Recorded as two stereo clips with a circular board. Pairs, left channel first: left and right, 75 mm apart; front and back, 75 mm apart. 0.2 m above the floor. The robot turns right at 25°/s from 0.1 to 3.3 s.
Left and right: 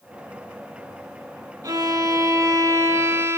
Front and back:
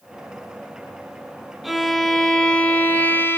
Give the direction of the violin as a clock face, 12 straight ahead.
3 o'clock.